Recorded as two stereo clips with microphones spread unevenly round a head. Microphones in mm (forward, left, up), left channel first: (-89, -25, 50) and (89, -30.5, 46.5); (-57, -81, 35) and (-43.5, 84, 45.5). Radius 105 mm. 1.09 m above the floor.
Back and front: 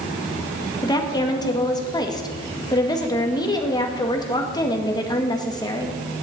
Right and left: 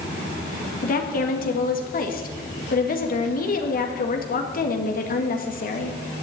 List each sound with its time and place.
0.8 s a woman speaking: 115° right, 2 m